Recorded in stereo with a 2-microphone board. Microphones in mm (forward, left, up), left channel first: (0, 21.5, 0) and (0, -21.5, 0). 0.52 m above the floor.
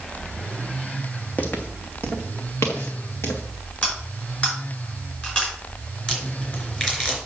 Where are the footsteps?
35° left (ahead or behind), 1.2 m; by 3.4 s 80° left, 2.5 m.